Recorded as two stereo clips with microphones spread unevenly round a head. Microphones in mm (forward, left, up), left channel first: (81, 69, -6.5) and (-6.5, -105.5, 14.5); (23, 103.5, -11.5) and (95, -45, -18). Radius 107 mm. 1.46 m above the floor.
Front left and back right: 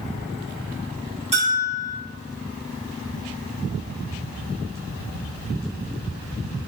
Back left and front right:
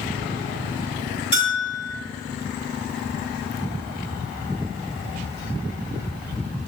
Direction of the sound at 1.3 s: Straight behind.